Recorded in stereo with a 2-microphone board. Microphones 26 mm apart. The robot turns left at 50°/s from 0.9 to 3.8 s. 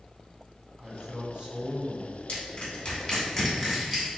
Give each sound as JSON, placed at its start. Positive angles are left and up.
{"t": 0.8, "sound": "a man speaking", "azimuth_deg": -35, "distance_m": 1.2}
{"t": 2.3, "sound": "crushing", "side_deg": 50, "distance_m": 1.3}